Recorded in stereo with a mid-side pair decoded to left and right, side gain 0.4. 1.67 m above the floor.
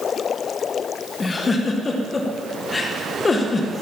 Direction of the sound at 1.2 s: 35° left.